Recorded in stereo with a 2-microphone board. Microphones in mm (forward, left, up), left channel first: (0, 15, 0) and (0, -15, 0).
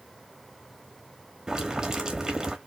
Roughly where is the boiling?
Right.